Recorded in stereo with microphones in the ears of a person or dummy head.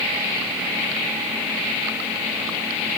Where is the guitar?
No guitar in this recording.